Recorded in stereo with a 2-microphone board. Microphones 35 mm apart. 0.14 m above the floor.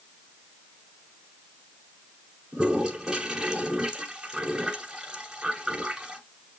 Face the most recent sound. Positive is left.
turn(degrees=-20)  # may be behind; listen again after turning